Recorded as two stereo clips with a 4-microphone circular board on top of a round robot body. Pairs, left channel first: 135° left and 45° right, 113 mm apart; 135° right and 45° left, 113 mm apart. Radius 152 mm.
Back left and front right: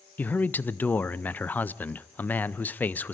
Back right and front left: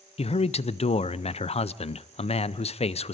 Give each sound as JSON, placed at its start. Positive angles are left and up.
{"t": 0.2, "sound": "a man speaking", "azimuth_deg": -150, "distance_m": 0.6}